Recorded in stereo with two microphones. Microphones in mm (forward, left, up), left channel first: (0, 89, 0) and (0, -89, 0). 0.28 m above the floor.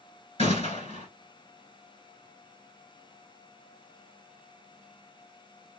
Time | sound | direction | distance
0.4 | a gunshot | 35° left (ahead or behind) | 1.9 m